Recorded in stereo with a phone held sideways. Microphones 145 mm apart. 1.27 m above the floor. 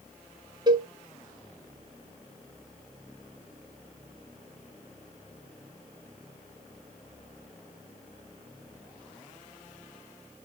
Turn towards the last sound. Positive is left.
turn(degrees=-30)  # may be behind; listen again after turning